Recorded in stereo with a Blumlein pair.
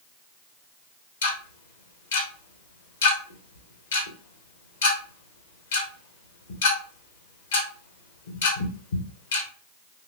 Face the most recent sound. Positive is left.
turn(degrees=60)